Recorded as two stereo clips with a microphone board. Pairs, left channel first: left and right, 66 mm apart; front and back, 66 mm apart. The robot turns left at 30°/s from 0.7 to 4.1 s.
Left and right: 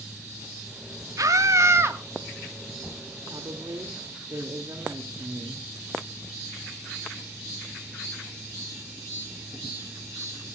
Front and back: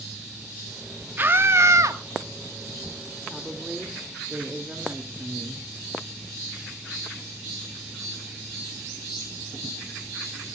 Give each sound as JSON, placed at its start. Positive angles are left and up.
{"t": 1.2, "sound": "a scream", "azimuth_deg": -120, "distance_m": 1.6}
{"t": 3.3, "sound": "a woman speaking", "azimuth_deg": -90, "distance_m": 2.5}